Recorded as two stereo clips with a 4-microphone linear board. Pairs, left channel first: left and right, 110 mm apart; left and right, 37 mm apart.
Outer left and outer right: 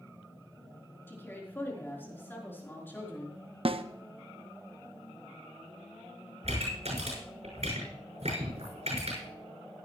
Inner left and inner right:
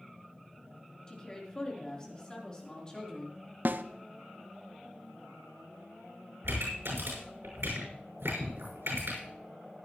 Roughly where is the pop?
Right.